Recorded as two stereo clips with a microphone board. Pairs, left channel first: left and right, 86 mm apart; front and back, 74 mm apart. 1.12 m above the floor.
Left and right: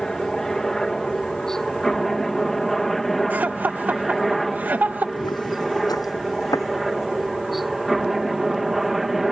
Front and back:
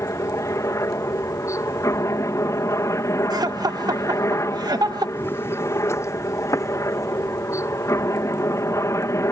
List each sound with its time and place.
0.0 s a helicopter: 10° left; by 9.3 s 5° right
3.3 s laughter: 160° right
5.2 s footsteps: 60° left; by 7.1 s 40° left